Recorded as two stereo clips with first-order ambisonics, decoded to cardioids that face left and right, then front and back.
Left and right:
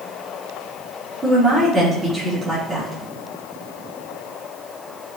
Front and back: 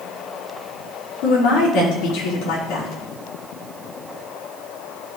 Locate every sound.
1.2 s a woman speaking: 15° right, 4.5 m